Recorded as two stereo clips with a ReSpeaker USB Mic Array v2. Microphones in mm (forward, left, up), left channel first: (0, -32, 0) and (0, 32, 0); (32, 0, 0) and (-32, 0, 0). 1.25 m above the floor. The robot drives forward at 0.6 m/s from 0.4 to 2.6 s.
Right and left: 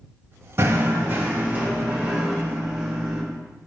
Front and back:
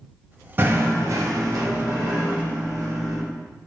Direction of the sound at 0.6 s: 130° left.